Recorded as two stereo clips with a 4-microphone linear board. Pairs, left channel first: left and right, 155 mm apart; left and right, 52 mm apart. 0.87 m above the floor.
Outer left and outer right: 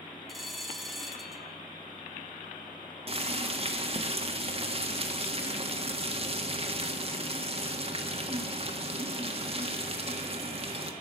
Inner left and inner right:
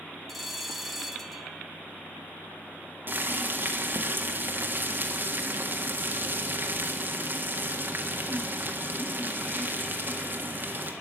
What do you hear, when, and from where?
0.3 s a bell: centre (ahead or behind), 1.4 m
3.1 s boiling: 40° right (ahead or behind), 1.6 m